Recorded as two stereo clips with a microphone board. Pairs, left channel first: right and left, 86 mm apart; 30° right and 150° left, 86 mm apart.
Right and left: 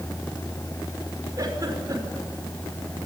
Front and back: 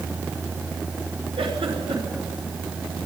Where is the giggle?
140° left, 5.5 m.